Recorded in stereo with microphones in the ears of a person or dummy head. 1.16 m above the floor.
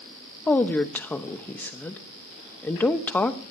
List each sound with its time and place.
0.5 s a woman speaking: 5° left (ahead or behind), 0.9 m